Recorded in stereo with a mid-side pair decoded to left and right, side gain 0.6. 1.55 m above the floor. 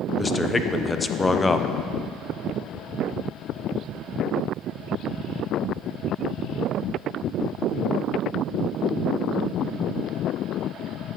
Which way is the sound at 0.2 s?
15° left.